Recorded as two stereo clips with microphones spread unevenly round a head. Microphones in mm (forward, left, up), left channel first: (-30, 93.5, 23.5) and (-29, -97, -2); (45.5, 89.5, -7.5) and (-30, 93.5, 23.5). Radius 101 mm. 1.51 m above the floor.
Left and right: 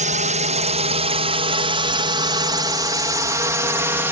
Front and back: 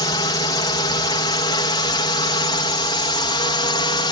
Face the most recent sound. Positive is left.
turn(degrees=-10)